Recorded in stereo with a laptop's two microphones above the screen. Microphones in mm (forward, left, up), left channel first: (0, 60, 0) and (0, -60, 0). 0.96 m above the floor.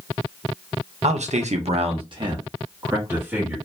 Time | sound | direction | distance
1.0 | a man speaking | 65° right (ahead or behind) | 0.6 m